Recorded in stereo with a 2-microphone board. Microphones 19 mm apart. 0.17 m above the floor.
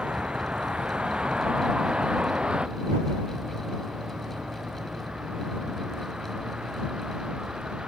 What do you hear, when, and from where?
0.0 s a vehicle: 70° right (ahead or behind); by 7.9 s 55° right (ahead or behind)